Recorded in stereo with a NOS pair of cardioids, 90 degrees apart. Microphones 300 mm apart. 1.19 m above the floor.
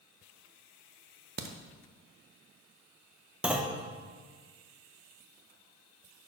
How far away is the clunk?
About 0.8 m.